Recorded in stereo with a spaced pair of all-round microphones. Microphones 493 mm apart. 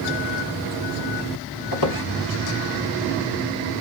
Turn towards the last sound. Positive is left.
turn(degrees=45)  # may be behind; listen again after turning